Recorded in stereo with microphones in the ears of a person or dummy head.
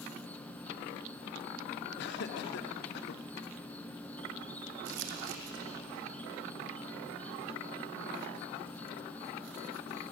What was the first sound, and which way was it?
An insect, 5° left (ahead or behind).